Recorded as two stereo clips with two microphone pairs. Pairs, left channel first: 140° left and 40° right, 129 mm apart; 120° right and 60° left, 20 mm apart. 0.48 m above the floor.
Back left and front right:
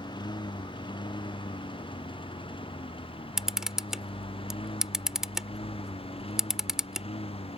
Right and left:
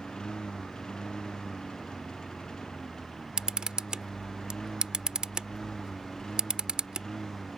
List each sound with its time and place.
0.0 s a lawn mower: 165° right; by 7.6 s straight behind
3.4 s a camera shutter: 40° left